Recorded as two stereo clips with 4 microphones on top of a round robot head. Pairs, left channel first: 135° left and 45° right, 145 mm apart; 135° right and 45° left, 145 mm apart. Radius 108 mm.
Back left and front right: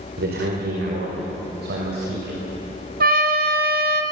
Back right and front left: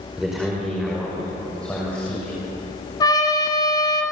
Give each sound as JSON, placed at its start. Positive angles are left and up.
{"t": 0.2, "sound": "a man speaking", "azimuth_deg": -40, "distance_m": 4.5}
{"t": 3.0, "sound": "a trumpet", "azimuth_deg": -70, "distance_m": 2.0}